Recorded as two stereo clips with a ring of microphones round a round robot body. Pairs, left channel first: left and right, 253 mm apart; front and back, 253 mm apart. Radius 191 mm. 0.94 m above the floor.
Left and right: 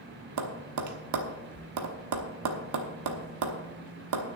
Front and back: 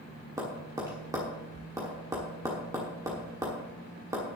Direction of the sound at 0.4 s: 100° right.